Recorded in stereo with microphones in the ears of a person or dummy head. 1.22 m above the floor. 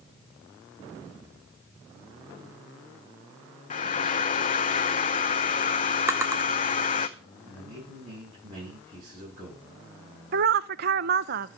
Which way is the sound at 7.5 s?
30° right (ahead or behind).